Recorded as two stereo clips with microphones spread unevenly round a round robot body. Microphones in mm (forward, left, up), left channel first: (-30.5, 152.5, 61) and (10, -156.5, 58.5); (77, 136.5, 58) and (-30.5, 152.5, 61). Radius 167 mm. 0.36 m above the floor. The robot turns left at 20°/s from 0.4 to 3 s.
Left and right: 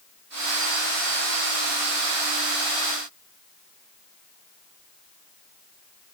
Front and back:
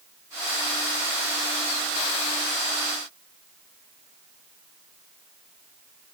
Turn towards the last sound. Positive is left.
No sound to turn to.